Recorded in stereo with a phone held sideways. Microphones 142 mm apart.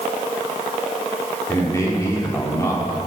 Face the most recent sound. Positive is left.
turn(degrees=20)  # may be behind; listen again after turning